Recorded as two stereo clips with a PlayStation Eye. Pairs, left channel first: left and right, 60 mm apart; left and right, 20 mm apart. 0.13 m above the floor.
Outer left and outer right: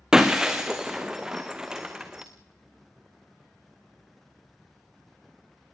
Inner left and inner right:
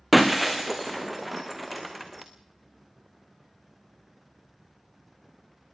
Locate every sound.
0.1 s breaking glass: 10° right (ahead or behind), 2 m